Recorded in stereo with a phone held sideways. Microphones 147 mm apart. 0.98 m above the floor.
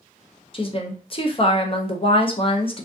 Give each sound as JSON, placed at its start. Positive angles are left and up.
{"t": 0.5, "sound": "a woman speaking", "side_deg": 40, "distance_m": 0.5}